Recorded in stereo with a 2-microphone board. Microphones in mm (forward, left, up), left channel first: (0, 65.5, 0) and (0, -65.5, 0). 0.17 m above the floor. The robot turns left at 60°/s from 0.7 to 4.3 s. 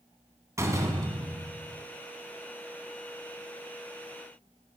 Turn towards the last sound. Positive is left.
turn(degrees=95)